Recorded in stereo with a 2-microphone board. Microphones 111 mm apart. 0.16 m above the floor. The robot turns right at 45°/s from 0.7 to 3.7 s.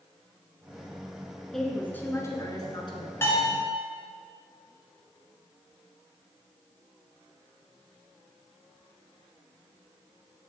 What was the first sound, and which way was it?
A woman speaking, straight ahead.